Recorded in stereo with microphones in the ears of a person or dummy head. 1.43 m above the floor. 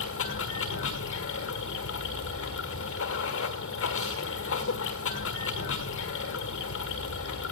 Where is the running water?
75° left (ahead or behind), 1.7 m.